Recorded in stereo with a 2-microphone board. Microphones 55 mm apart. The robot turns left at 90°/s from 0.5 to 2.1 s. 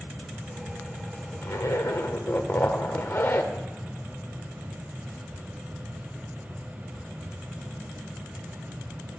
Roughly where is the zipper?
Left.